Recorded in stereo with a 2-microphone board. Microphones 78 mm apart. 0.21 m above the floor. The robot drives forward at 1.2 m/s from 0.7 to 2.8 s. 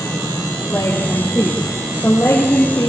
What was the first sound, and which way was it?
A woman speaking, 25° left (ahead or behind).